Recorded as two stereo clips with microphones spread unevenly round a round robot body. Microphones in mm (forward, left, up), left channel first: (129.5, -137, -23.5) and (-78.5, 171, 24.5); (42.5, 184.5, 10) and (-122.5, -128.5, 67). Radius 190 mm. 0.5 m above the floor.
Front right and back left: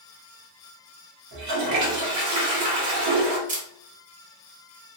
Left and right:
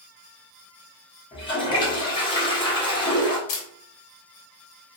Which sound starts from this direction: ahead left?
A camera shutter, at 3.5 s.